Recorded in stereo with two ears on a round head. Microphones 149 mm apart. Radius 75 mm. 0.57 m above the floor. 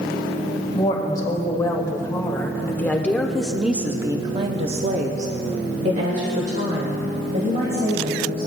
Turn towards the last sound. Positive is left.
turn(degrees=-40)  # may be behind; listen again after turning